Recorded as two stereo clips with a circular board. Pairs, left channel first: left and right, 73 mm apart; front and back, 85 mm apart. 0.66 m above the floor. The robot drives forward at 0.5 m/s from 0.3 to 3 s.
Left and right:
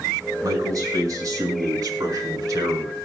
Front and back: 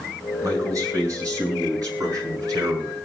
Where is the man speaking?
130° right, 7 m; by 3.0 s 135° right, 7.5 m.